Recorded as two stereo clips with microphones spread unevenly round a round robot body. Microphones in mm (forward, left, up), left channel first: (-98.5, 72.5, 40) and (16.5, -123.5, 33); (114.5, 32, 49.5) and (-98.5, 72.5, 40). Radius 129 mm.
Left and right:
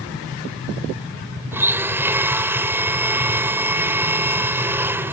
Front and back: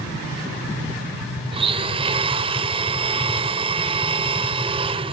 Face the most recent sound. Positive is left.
turn(degrees=-135)